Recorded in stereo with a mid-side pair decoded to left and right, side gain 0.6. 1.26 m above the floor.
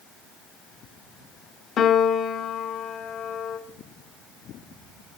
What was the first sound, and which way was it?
A piano, 50° left.